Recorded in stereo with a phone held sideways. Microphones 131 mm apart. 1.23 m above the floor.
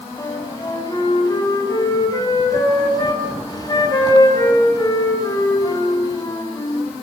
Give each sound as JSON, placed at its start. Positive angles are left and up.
{"t": 0.2, "sound": "a flute", "side_deg": 30, "distance_m": 7.0}